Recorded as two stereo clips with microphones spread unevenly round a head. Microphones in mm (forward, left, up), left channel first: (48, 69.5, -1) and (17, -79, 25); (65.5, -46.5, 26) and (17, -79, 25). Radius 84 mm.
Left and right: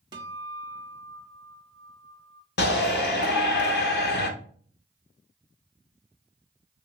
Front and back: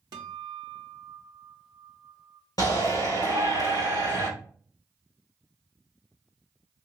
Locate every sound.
0.1 s a guitar: 170° right, 0.7 m
2.6 s a shout: 60° left, 1.1 m